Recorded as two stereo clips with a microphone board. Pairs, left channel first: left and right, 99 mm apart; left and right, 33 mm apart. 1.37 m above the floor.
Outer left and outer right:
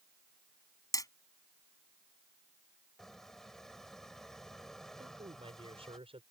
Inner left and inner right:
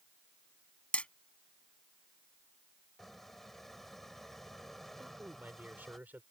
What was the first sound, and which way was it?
Hammering, 35° left (ahead or behind).